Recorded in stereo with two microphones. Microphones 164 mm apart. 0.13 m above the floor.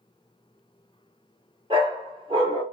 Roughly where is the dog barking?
Right.